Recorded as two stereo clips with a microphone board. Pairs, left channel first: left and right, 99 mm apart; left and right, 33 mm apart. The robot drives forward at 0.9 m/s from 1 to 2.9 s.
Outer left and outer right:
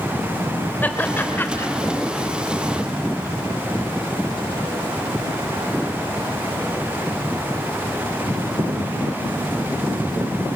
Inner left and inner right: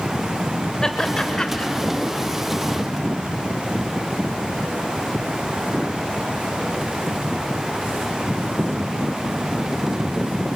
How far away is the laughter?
About 2.5 m.